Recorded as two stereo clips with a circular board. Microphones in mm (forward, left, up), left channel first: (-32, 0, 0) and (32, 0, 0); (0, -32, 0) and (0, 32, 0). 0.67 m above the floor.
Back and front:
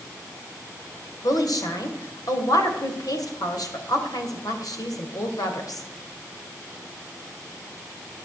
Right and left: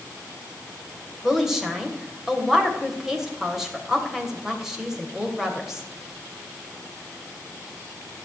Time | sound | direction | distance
1.2 | a woman speaking | 175° left | 2.5 m